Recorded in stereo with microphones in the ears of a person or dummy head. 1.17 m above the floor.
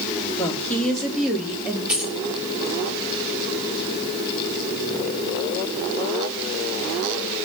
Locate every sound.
0.4 s a woman speaking: 10° left (ahead or behind), 2.5 m; by 1.8 s 10° right (ahead or behind), 2.5 m
1.9 s keys jangling: 5° right (ahead or behind), 1.1 m